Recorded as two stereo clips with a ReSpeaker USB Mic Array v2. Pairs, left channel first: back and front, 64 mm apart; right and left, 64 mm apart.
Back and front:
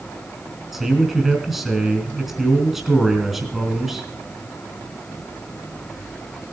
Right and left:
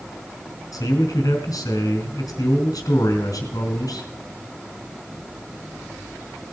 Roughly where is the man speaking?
Right.